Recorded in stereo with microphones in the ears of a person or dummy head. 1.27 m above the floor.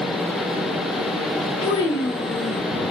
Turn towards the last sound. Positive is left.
turn(degrees=15)  # may be behind; listen again after turning